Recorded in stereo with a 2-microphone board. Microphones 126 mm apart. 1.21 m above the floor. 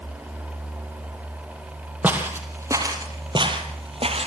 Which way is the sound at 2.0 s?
10° right (ahead or behind).